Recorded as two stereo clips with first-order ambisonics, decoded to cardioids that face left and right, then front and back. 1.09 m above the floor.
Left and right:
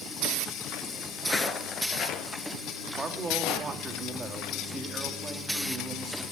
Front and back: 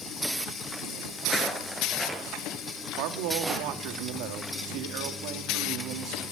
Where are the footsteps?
10° left, 1.1 m; by 3.7 s 110° left, 3 m.